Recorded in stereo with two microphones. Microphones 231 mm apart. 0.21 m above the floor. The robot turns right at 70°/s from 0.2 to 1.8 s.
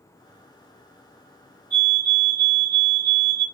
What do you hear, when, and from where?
1.7 s a fire alarm: 70° left (ahead or behind), 6 m